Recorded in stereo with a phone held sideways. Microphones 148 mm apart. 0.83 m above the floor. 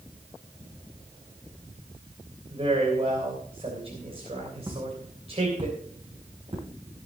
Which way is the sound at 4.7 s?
25° right (ahead or behind).